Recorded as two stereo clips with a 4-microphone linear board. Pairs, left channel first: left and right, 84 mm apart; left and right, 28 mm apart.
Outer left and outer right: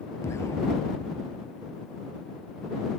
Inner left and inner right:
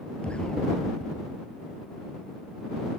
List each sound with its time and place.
0.2 s an explosion: 35° left (ahead or behind)